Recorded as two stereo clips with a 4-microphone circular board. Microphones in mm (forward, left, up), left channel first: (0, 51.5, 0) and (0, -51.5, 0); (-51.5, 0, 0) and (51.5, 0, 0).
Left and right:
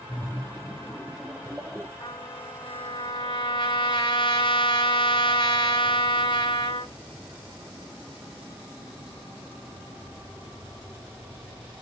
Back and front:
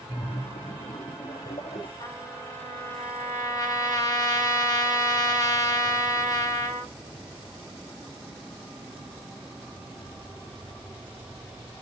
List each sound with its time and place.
0.1 s a splash: 175° right, 1.8 m
2.0 s a trumpet: 125° left, 3 m